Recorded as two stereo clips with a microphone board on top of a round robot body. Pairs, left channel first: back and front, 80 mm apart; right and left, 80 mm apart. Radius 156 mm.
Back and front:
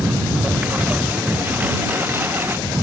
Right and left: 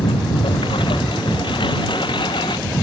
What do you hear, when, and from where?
0.0 s a lawn mower: 75° right; by 2.8 s 65° right